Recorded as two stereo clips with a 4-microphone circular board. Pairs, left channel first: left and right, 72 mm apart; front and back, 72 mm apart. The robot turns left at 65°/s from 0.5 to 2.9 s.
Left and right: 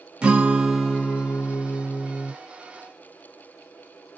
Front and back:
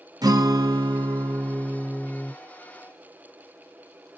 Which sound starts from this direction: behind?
A guitar, at 0.2 s.